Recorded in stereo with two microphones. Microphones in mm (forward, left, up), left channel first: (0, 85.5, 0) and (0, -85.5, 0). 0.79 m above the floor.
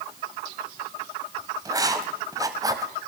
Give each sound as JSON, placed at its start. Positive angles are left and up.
{"t": 1.6, "sound": "writing", "side_deg": -20, "distance_m": 1.8}